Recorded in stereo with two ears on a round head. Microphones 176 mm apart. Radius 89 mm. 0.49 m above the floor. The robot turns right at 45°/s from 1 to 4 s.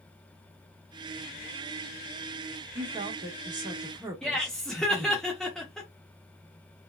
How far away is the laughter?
About 0.7 m.